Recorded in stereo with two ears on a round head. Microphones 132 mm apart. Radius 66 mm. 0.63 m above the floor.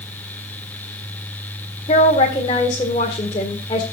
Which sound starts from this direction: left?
A woman speaking, at 1.9 s.